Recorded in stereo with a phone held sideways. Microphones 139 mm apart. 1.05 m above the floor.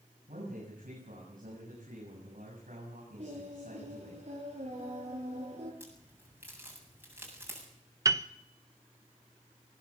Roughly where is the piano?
Right.